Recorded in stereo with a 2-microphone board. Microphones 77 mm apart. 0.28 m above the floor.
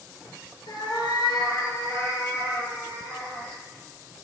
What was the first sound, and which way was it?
A cat meowing, 80° left.